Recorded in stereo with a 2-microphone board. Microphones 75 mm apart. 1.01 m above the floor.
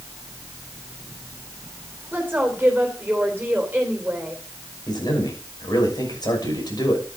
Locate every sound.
2.1 s a woman speaking: 15° right (ahead or behind), 3 m
4.9 s a man speaking: 60° left (ahead or behind), 6 m